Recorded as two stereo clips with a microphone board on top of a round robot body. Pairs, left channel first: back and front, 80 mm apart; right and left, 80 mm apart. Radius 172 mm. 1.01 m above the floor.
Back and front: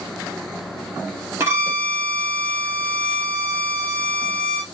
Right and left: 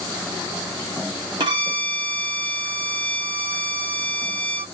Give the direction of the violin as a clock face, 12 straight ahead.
10 o'clock.